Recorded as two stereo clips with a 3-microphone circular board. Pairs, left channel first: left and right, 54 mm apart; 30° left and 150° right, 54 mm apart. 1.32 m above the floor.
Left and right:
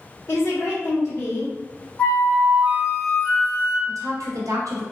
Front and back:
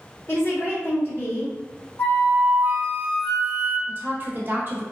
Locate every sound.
0.3 s a woman speaking: 65° left, 1.2 m
2.0 s a flute: 45° left, 1.3 m
3.9 s a woman speaking: 100° right, 0.8 m